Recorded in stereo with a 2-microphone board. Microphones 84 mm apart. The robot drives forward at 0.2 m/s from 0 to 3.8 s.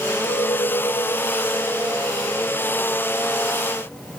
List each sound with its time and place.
0.2 s a clink: 70° left (ahead or behind), 4 m; by 4.0 s 65° left (ahead or behind), 4 m